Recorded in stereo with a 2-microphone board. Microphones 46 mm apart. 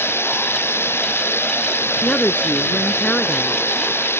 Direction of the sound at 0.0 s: 60° left (ahead or behind).